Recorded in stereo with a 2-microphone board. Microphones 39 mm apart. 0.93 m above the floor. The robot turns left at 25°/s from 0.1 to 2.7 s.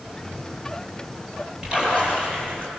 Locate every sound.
1.6 s a splash: 25° right (ahead or behind), 9 m; by 2.7 s 50° right (ahead or behind), 9 m